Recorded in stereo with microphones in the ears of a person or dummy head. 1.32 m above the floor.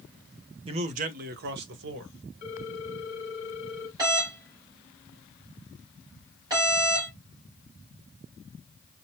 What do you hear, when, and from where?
0.7 s a man speaking: 30° right (ahead or behind), 0.6 m; by 2.1 s 70° right (ahead or behind), 1.2 m
2.4 s a ringtone: 45° left (ahead or behind), 1.1 m
4.0 s a doorbell: 25° right (ahead or behind), 3 m